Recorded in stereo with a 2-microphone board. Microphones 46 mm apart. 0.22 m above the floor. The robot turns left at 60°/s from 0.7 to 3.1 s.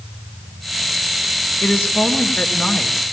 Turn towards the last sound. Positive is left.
turn(degrees=0)